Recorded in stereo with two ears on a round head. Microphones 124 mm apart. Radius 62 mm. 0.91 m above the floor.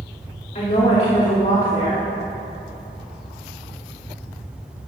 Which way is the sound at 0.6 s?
55° left (ahead or behind).